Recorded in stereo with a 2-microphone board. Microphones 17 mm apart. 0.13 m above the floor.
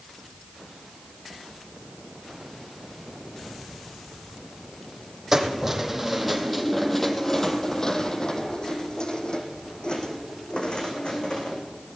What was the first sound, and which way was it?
Keys jangling, 25° right (ahead or behind).